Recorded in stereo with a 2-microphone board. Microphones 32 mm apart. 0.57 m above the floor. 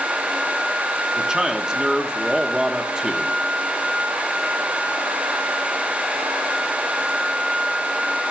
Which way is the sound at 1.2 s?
25° right (ahead or behind).